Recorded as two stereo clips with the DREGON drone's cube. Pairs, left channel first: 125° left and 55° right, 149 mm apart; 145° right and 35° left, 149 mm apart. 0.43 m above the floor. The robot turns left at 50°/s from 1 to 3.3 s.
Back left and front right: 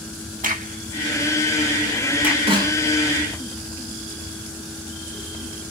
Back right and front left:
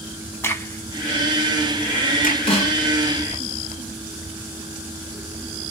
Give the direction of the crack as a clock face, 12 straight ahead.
2 o'clock.